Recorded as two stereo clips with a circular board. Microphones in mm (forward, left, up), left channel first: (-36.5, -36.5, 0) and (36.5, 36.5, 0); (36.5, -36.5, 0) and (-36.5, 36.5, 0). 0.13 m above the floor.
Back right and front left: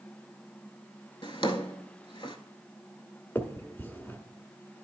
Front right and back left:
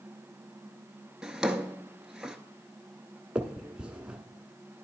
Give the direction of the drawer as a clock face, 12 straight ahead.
5 o'clock.